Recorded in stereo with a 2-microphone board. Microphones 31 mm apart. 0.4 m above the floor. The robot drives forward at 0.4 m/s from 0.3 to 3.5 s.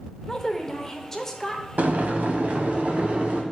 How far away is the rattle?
I don't hear a rattle.